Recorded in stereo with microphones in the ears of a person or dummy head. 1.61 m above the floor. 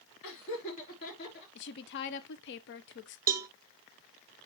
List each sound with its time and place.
0.2 s laughter: 60° left (ahead or behind), 4 m
1.6 s a woman speaking: 60° left (ahead or behind), 0.9 m
3.3 s a cowbell: 20° right (ahead or behind), 0.7 m